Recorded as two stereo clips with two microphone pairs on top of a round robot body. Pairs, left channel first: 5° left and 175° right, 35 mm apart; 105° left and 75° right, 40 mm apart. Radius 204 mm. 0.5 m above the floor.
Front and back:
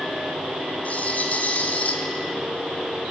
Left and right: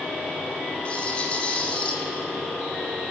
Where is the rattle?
45° left, 3 m.